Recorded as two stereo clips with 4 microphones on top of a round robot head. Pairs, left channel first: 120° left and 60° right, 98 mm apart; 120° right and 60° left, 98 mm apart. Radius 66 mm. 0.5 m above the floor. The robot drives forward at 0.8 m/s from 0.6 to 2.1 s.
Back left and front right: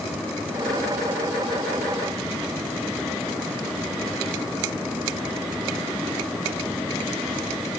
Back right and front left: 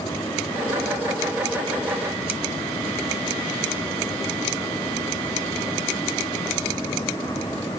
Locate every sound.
Only background noise.